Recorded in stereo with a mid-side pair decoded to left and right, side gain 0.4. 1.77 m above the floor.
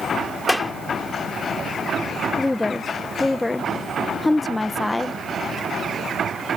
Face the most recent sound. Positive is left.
turn(degrees=20)